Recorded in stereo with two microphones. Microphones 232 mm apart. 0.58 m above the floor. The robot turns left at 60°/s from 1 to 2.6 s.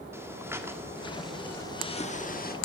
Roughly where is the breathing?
Behind.